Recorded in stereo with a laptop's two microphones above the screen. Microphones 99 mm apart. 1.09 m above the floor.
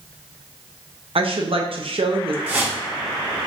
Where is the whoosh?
20° right (ahead or behind), 0.8 m.